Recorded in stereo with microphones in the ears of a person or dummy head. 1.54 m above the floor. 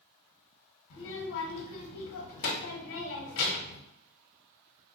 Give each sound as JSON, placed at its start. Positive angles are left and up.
{"t": 0.9, "sound": "a child speaking", "side_deg": 65, "distance_m": 0.8}